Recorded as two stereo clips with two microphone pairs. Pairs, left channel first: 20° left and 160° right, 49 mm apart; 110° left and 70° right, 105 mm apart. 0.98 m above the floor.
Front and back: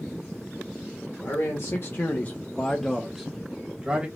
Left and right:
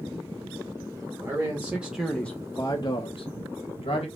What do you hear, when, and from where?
1.2 s a man speaking: 5° right, 1.1 m; by 4.1 s 135° left, 1.3 m